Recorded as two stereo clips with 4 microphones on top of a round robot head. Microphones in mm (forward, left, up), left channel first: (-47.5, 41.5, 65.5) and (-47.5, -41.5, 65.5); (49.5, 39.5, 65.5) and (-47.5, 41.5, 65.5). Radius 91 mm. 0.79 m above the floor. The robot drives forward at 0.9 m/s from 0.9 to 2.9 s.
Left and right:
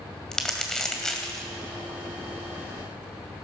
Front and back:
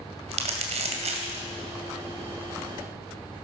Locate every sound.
0.3 s crumpling: 175° left, 2.5 m